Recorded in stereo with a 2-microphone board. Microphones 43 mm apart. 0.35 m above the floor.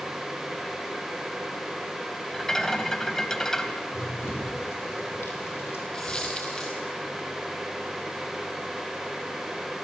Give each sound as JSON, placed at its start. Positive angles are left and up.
{"t": 2.3, "sound": "a rattle", "side_deg": 10, "distance_m": 1.4}
{"t": 3.9, "sound": "running footsteps", "side_deg": 75, "distance_m": 6.0}
{"t": 5.9, "sound": "a dropped coin", "side_deg": 25, "distance_m": 2.5}